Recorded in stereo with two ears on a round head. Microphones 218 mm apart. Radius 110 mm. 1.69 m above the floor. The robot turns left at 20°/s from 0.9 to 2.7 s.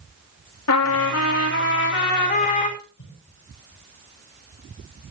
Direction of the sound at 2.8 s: 70° left (ahead or behind).